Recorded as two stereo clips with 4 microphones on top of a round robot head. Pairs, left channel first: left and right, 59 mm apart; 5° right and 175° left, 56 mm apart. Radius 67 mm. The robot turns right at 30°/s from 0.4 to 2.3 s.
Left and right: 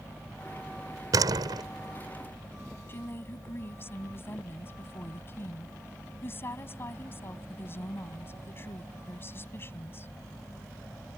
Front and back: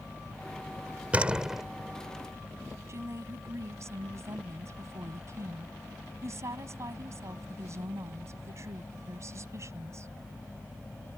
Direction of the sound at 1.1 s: 115° right.